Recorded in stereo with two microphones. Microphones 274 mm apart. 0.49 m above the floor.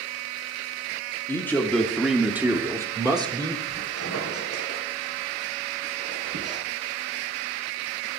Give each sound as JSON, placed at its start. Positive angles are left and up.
{"t": 1.3, "sound": "a man speaking", "side_deg": 10, "distance_m": 1.2}
{"t": 3.7, "sound": "a squeak", "side_deg": -65, "distance_m": 2.5}